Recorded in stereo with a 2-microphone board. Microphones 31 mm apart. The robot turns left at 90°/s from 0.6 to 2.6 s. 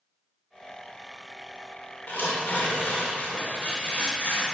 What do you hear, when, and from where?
2.1 s tearing paper: 110° left, 2 m; by 4.4 s 65° left, 2 m